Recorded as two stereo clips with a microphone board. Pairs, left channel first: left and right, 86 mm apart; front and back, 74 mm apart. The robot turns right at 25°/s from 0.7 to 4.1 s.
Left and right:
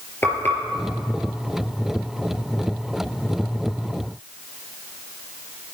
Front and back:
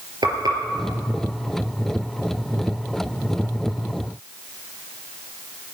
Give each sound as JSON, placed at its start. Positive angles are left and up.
{"t": 0.2, "sound": "frying", "azimuth_deg": 155, "distance_m": 4.0}